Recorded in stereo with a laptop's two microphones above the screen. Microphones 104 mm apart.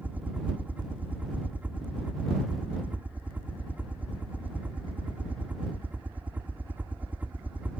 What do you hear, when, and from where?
0.0 s a helicopter: 15° right (ahead or behind)